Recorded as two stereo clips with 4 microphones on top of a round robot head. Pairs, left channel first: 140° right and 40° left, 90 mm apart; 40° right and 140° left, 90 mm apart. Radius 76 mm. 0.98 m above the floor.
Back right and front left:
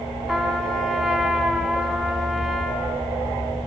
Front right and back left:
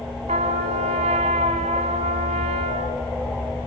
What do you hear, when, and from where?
0.3 s a trumpet: 125° left, 1.7 m